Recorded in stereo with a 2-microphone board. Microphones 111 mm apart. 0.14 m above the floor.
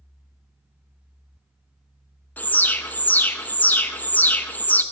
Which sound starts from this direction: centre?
An alarm, at 2.4 s.